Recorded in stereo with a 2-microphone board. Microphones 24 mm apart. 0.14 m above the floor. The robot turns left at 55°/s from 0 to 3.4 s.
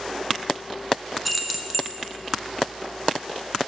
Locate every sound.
1.2 s keys jangling: 5° right (ahead or behind), 0.8 m; by 1.9 s 20° right (ahead or behind), 0.8 m